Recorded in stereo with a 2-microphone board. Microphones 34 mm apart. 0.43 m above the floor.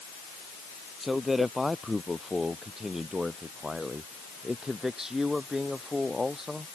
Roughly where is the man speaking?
Centre.